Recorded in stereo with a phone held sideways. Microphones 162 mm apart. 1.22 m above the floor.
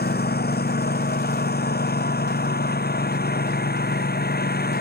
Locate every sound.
0.0 s a lawn mower: 80° left